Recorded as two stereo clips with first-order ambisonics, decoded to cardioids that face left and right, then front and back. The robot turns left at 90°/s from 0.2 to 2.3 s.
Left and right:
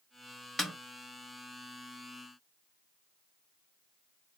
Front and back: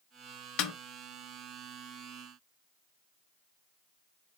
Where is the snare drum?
5° left, 0.9 m; by 0.7 s 10° right, 0.9 m.